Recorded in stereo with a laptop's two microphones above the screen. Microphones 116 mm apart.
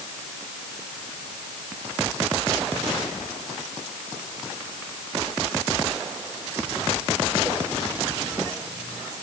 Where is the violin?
No violin in this recording.